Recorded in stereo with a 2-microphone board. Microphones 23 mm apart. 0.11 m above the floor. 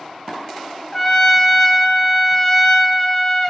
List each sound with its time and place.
0.9 s a trumpet: 15° left (ahead or behind), 0.6 m